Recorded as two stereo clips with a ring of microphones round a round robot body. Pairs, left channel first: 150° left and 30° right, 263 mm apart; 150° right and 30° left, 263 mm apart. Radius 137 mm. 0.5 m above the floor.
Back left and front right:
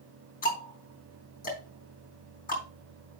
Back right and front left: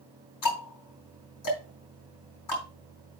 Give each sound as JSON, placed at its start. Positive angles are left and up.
{"t": 0.4, "sound": "ticking", "azimuth_deg": -150, "distance_m": 3.5}